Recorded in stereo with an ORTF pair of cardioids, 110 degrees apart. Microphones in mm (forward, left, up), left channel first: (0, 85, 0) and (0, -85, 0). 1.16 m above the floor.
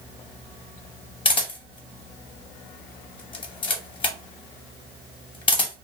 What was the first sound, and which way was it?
A camera shutter, 30° left.